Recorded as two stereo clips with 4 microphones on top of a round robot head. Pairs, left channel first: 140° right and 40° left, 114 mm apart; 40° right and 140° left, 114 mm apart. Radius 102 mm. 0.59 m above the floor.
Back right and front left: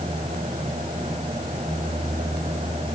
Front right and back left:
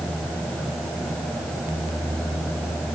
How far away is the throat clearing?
No throat clearing in this recording.